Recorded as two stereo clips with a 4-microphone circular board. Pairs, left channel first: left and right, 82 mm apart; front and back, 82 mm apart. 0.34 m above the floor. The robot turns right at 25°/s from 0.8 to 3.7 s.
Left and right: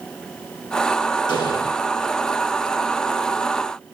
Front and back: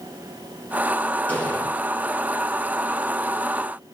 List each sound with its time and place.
1.3 s an explosion: 70° left, 9 m; by 1.6 s 80° left, 9 m